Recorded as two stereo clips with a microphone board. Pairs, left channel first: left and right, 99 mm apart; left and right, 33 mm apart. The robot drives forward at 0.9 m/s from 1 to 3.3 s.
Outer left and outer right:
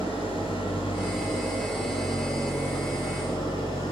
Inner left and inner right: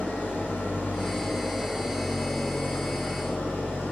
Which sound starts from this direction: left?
An engine running, at 0.0 s.